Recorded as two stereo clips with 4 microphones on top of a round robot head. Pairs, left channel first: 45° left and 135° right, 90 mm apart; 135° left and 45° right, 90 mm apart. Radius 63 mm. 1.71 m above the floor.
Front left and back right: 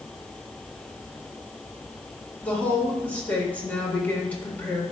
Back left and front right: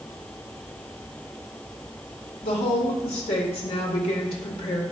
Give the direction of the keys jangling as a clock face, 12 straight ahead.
I don't hear keys jangling.